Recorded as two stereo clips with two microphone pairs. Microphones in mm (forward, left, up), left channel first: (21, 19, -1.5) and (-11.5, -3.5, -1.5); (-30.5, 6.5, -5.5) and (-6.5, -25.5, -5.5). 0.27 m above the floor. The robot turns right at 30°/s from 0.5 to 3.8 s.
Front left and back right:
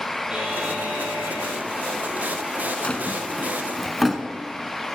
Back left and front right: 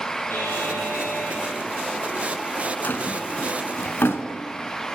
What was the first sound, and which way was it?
A buzzer, 145° left.